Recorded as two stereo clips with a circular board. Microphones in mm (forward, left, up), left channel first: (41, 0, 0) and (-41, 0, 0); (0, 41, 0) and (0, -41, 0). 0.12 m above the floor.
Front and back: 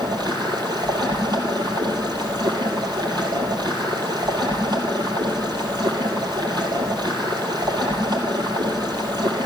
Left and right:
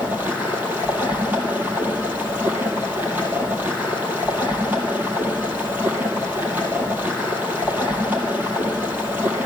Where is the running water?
155° right, 2.5 m.